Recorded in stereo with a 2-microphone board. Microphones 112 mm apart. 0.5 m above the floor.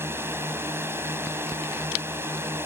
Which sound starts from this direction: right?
A drone, at 0.0 s.